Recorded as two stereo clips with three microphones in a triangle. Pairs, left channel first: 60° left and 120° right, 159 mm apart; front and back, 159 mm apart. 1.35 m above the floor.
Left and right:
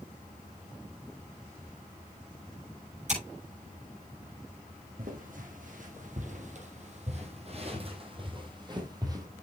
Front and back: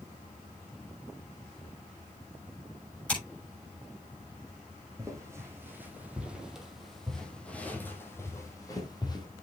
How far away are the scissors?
About 7 m.